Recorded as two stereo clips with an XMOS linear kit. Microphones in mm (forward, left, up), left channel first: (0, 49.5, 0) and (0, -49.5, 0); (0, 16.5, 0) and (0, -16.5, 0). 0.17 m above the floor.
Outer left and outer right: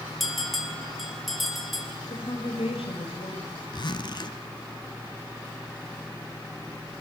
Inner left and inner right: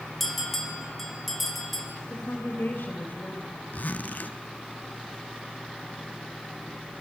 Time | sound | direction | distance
0.2 | a bell | centre (ahead or behind) | 3.5 m
2.1 | a woman speaking | 70° left (ahead or behind) | 4.5 m
3.7 | a zipper | 50° left (ahead or behind) | 1.1 m